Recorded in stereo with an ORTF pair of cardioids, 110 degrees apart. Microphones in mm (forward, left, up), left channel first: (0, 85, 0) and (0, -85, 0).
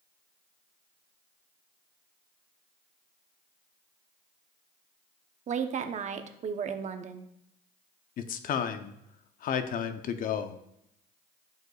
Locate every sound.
5.5 s a woman speaking: 45° right, 0.9 m
8.2 s a man speaking: 55° left, 0.7 m